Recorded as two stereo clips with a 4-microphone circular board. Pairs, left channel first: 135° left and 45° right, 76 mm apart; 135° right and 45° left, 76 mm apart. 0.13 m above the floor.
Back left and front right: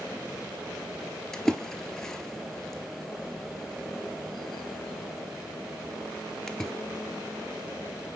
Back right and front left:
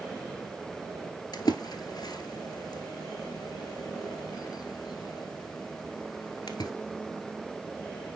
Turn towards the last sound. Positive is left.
turn(degrees=-140)